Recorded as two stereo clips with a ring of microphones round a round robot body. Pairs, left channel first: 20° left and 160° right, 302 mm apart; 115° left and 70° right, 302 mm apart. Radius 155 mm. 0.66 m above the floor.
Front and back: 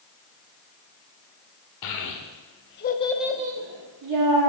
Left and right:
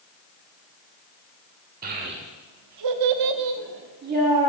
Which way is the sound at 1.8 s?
5° right.